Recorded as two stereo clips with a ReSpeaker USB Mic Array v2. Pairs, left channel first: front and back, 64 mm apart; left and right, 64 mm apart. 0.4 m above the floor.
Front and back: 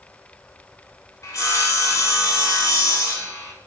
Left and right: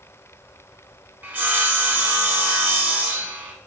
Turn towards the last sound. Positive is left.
turn(degrees=-30)